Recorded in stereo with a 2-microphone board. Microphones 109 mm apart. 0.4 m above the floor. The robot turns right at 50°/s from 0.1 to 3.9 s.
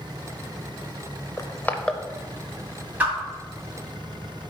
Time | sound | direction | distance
1.4 | crushing | 30° left (ahead or behind) | 0.6 m
3.0 | a whoosh | 15° right (ahead or behind) | 1.8 m